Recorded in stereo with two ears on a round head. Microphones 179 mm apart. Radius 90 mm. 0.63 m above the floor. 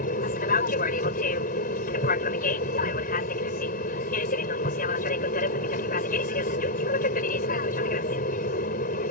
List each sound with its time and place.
0.0 s an aircraft: 45° left (ahead or behind)